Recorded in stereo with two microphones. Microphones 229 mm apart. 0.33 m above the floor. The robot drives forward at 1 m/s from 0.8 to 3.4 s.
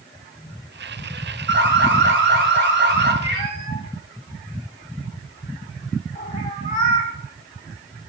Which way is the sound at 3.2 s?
25° left (ahead or behind).